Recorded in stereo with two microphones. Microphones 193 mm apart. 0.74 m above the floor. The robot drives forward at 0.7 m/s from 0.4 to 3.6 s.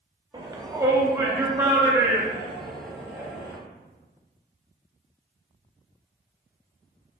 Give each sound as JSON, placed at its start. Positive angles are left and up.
{"t": 0.3, "sound": "a shout", "side_deg": -20, "distance_m": 0.8}